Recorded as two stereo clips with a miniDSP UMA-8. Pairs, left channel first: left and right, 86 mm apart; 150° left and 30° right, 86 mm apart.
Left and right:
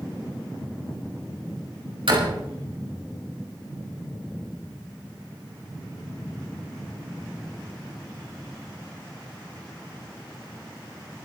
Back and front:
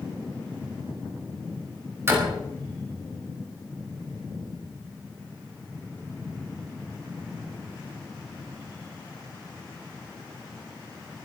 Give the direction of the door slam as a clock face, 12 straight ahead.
3 o'clock.